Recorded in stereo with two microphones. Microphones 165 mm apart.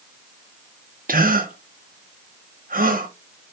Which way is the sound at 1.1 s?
60° right (ahead or behind).